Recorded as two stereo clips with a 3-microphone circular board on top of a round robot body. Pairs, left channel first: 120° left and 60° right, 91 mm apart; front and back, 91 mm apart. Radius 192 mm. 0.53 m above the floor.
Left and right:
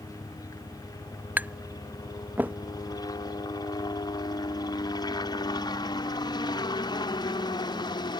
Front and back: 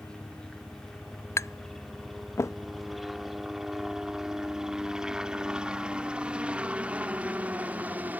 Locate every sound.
0.0 s a helicopter: 80° left; by 8.2 s 115° left
1.4 s tapping: 5° right